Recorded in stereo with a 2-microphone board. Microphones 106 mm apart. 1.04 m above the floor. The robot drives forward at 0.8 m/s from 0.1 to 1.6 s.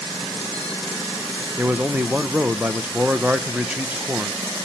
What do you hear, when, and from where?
1.6 s a man speaking: 15° right (ahead or behind), 0.7 m